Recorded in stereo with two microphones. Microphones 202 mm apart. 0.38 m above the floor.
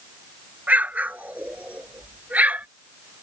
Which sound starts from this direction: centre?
An explosion, at 0.7 s.